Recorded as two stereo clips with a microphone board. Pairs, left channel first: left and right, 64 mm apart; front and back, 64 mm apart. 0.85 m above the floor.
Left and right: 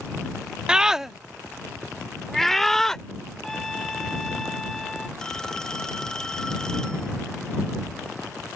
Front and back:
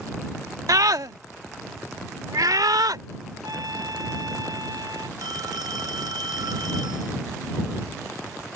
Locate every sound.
0.7 s a scream: 165° right; by 3.0 s 170° left
3.4 s a trumpet: 175° left
5.2 s a phone ringing: 170° left